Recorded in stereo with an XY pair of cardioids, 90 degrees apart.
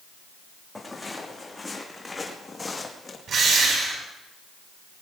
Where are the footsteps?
15° left, 5.5 m; by 3.2 s 30° left, 4 m.